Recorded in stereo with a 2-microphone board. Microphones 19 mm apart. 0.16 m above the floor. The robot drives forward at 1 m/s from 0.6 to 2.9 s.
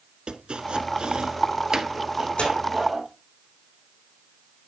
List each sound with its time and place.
0.3 s chopping: 55° right (ahead or behind), 0.9 m; by 3.1 s 20° right (ahead or behind), 2.5 m
2.4 s tearing paper: 75° left (ahead or behind), 5.5 m; by 2.5 s 80° left, 5.5 m